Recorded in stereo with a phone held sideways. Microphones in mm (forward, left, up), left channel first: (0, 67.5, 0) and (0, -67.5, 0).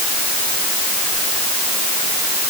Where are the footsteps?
I don't hear footsteps.